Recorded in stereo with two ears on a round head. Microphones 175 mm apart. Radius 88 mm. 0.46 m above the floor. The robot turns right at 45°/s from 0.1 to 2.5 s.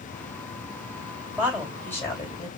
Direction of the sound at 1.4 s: 10° right.